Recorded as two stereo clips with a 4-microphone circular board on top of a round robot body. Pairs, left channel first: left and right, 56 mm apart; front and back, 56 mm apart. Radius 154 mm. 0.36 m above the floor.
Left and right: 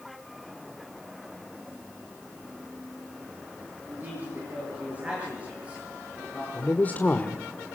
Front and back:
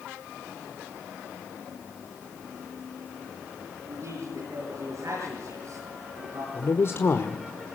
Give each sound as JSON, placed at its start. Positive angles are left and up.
{"t": 3.9, "sound": "a man speaking", "azimuth_deg": -150, "distance_m": 10.0}
{"t": 6.5, "sound": "a man speaking", "azimuth_deg": 30, "distance_m": 1.5}